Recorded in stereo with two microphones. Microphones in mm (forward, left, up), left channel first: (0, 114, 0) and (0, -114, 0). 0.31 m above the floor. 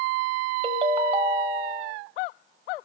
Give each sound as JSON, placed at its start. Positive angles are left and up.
{"t": 0.6, "sound": "a ringtone", "side_deg": -25, "distance_m": 1.3}